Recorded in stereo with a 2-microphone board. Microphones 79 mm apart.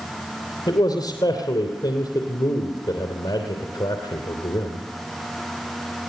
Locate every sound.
0.7 s a man speaking: 65° left (ahead or behind), 3 m